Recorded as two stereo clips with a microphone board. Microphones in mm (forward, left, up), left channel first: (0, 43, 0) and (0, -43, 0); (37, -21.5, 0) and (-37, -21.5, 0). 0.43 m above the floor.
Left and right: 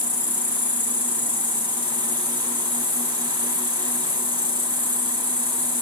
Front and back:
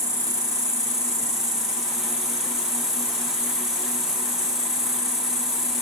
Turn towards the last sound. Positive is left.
turn(degrees=-160)